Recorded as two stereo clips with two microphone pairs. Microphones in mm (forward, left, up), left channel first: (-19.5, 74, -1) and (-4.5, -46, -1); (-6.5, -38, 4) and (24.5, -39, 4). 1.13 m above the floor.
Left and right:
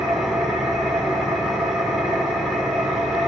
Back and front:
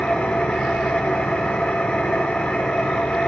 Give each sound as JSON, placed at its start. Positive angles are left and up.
{"t": 0.0, "sound": "an engine running", "azimuth_deg": -170, "distance_m": 1.7}